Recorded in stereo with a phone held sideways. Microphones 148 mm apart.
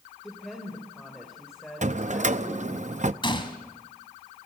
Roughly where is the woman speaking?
Centre.